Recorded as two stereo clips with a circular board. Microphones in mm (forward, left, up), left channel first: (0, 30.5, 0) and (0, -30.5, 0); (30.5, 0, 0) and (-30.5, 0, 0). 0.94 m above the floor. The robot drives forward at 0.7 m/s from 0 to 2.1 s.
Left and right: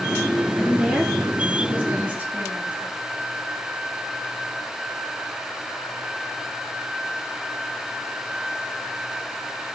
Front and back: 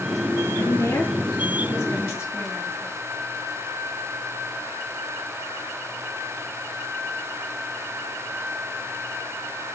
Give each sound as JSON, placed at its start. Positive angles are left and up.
{"t": 0.6, "sound": "a woman speaking", "azimuth_deg": -15, "distance_m": 2.5}